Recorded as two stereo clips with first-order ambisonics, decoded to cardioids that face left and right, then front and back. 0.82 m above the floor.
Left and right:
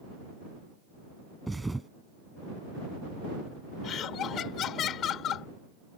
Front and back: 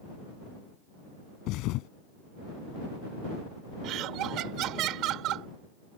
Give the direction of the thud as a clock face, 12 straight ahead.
12 o'clock.